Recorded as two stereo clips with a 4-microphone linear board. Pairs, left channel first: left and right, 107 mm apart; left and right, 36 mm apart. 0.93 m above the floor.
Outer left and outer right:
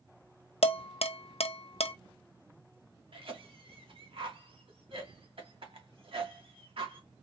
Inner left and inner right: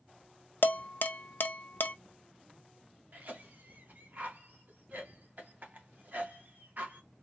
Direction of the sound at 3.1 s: 55° right (ahead or behind).